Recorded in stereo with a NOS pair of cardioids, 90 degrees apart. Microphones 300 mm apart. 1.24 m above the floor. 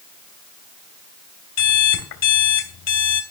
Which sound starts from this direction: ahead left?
An alarm clock, at 1.6 s.